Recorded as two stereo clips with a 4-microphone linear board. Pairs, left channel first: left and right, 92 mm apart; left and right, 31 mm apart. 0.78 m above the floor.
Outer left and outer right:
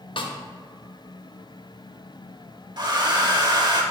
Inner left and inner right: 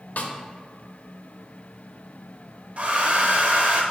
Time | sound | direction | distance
0.2 | a snare drum | 80° left | 0.7 m
2.8 | a hair dryer | 55° right (ahead or behind) | 0.8 m